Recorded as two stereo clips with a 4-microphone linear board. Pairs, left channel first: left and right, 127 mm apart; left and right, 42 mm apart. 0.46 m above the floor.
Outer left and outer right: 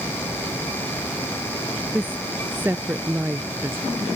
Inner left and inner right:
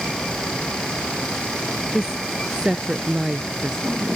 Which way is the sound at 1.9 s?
15° right (ahead or behind).